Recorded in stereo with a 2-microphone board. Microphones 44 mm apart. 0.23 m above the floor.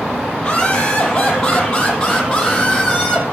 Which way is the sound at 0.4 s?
20° left (ahead or behind).